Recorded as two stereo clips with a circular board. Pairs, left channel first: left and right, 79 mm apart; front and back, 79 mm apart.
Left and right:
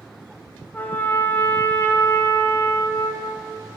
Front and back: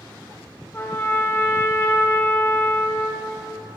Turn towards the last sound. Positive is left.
turn(degrees=40)